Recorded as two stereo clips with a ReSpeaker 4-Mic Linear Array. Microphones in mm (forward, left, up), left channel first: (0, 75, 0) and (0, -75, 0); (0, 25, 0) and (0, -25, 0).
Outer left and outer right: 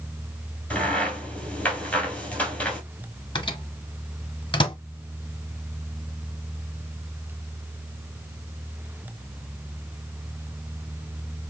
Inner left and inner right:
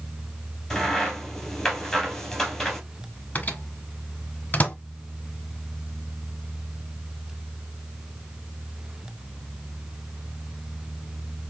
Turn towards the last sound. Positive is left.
turn(degrees=30)  # may be behind; listen again after turning